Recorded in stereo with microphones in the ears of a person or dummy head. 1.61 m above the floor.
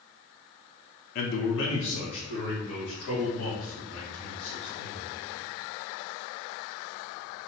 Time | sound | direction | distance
1.1 | a man speaking | 45° left (ahead or behind) | 0.5 m